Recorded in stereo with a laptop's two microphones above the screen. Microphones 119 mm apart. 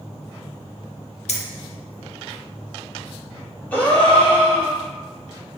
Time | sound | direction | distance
1.3 | keys jangling | 70° left (ahead or behind) | 0.7 m
3.7 | a gasp | 15° left (ahead or behind) | 2 m